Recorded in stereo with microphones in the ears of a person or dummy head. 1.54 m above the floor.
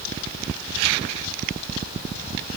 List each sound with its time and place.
Only background noise.